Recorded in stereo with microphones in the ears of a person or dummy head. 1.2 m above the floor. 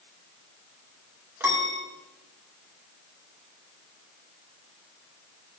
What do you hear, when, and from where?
1.4 s a piano: 10° right (ahead or behind), 1.6 m